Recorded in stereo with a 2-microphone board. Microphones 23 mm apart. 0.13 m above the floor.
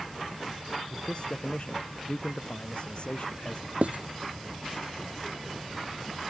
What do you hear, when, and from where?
0.9 s a man speaking: 40° left (ahead or behind); by 3.7 s 50° left (ahead or behind)
3.8 s writing: 70° right (ahead or behind)